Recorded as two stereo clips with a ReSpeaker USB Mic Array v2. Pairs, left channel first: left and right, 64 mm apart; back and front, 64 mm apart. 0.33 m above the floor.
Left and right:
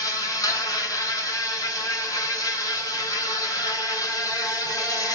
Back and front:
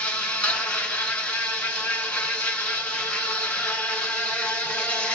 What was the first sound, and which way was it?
An insect, 110° left.